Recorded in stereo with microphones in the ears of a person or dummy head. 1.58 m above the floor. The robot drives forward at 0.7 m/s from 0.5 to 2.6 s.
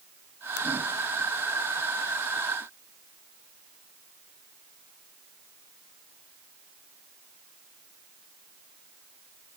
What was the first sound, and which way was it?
A ringtone, 70° left (ahead or behind).